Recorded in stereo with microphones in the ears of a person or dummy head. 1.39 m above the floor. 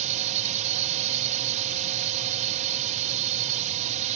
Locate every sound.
0.0 s a drone: 40° right (ahead or behind)